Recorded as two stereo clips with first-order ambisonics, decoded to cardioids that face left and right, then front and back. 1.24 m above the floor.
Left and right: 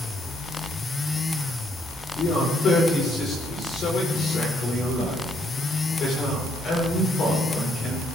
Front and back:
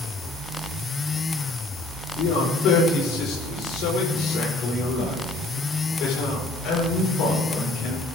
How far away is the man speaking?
About 4.5 m.